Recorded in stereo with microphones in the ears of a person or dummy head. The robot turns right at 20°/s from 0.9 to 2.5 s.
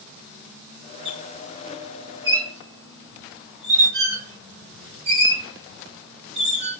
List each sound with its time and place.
1.1 s a squeak: 35° right (ahead or behind), 2 m; by 6.8 s 60° right (ahead or behind), 2 m